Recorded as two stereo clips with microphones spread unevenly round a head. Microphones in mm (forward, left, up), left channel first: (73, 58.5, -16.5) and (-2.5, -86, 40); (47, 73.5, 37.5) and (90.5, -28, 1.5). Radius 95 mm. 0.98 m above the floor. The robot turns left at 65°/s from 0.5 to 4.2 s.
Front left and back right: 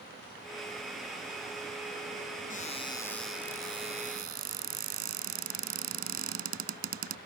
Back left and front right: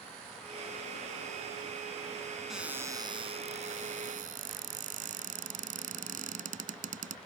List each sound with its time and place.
2.5 s a cupboard door: 20° left; by 7.2 s 90° right